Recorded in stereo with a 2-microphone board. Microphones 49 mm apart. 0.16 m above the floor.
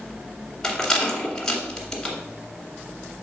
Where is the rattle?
10° left (ahead or behind), 2.0 m.